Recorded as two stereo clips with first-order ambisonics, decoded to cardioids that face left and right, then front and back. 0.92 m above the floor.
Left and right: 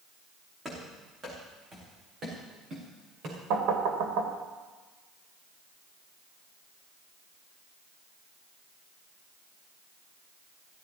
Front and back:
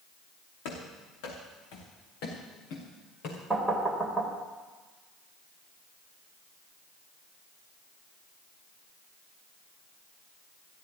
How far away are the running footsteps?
About 5 m.